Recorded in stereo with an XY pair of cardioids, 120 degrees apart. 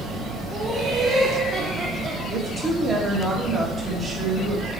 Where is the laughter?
10° right, 1.8 m; by 2.2 s 30° right, 0.9 m.